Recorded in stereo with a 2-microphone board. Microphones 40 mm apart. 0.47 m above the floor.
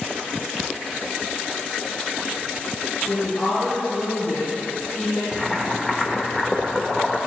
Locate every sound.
3.1 s a woman speaking: 55° left (ahead or behind), 3 m
5.3 s boiling: 10° left (ahead or behind), 0.8 m